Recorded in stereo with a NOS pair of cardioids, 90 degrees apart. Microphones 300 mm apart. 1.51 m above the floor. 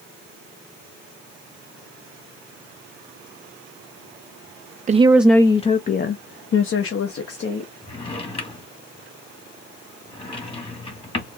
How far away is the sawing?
I don't hear sawing.